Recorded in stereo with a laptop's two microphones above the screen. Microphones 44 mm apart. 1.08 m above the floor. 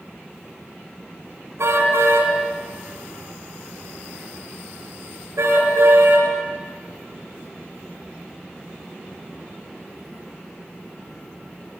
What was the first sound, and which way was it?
A car horn, 85° right.